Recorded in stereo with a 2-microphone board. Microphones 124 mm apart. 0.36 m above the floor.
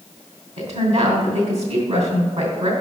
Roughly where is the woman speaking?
Right.